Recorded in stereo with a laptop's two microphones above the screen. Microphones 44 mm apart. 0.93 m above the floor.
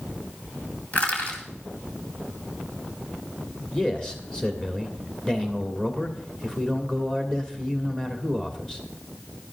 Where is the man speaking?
15° left (ahead or behind), 2.5 m.